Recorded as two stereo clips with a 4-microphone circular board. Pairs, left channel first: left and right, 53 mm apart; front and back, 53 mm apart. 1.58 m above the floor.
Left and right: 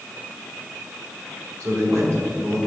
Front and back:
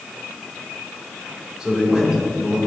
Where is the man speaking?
105° right, 1.9 m.